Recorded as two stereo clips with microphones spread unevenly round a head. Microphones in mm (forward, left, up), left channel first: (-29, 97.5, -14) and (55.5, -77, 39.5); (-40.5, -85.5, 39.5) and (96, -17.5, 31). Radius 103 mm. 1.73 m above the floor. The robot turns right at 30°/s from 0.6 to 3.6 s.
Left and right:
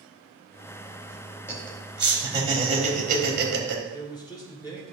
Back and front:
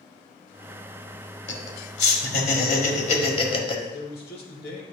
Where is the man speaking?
165° right, 1.4 m.